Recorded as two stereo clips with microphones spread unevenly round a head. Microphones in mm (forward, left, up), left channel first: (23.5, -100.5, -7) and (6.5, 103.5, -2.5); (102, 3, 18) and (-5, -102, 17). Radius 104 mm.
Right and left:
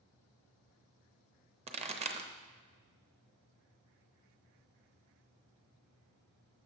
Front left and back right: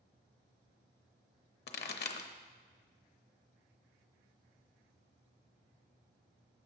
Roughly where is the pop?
Ahead left.